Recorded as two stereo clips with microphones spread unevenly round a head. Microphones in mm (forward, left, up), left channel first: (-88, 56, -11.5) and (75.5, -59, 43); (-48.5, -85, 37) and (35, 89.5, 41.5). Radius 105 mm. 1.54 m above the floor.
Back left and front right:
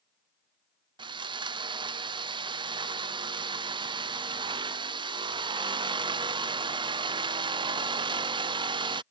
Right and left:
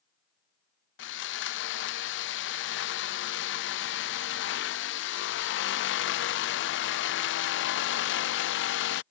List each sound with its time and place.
1.0 s sawing: 110° right